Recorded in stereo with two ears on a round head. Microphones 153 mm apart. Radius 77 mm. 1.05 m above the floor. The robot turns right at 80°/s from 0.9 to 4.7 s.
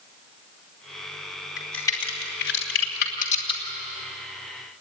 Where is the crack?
5° right (ahead or behind), 3.5 m; by 3.6 s 20° left (ahead or behind), 3.5 m.